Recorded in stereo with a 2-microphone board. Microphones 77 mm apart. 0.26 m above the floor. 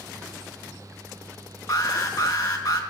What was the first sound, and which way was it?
An alarm, 55° left (ahead or behind).